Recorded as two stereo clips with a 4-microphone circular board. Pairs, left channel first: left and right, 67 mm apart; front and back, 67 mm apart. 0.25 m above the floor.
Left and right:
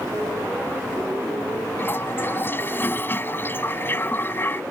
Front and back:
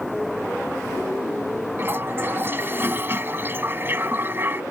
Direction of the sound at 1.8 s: 135° left.